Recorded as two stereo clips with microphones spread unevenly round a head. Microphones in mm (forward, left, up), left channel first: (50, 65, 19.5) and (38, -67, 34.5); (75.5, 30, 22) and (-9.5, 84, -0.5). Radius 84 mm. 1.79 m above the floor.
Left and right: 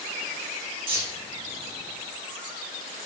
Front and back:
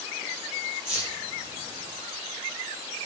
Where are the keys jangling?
155° right, 3.5 m.